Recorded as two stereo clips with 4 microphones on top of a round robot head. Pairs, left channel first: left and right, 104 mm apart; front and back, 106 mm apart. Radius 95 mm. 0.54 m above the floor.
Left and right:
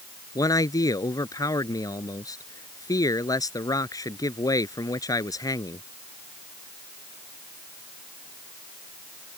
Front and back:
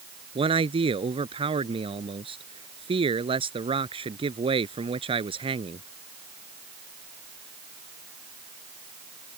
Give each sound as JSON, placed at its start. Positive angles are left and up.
{"t": 0.3, "sound": "a man speaking", "azimuth_deg": 145}